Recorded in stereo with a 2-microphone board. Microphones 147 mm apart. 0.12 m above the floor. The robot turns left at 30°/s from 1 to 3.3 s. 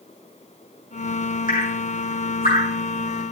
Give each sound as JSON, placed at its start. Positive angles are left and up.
{"t": 1.5, "sound": "dripping", "side_deg": 65, "distance_m": 5.5}